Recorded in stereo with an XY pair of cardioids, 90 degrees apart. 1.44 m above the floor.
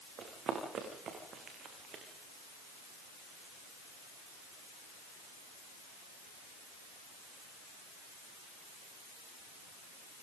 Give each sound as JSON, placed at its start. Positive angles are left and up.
{"t": 0.2, "sound": "running footsteps", "azimuth_deg": -65, "distance_m": 8.0}